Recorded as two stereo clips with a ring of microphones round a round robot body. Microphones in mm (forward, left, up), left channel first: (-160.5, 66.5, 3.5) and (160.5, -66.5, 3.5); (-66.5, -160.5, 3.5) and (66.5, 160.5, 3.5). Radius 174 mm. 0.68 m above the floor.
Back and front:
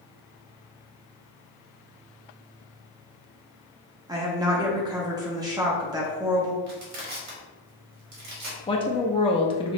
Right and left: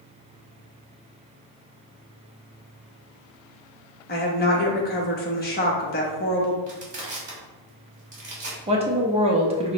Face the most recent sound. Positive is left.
turn(degrees=110)